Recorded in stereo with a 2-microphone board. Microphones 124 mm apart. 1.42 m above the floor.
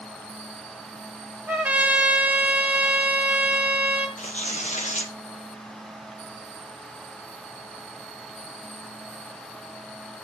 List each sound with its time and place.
1.5 s a trumpet: 15° right (ahead or behind), 1.7 m
4.2 s tearing paper: 75° left (ahead or behind), 1.4 m